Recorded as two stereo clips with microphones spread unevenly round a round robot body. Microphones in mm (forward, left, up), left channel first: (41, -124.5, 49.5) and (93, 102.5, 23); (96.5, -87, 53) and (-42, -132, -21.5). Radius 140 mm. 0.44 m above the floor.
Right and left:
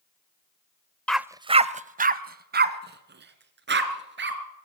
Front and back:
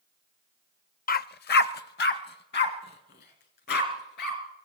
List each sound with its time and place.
1.1 s a dog barking: 15° right, 0.6 m; by 4.4 s 40° left, 4 m